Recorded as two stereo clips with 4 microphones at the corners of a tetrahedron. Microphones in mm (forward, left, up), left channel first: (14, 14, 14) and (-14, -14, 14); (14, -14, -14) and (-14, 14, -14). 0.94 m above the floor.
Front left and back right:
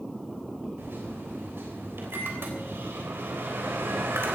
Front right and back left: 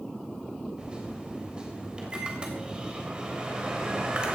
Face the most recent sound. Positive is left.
turn(degrees=-155)